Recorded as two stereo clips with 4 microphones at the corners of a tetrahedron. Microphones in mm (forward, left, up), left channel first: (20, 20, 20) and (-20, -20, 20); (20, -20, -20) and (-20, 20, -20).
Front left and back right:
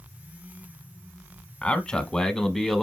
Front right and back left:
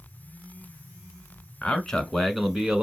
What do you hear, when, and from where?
1.6 s a man speaking: straight ahead, 1.1 m; by 2.8 s 130° left, 1.0 m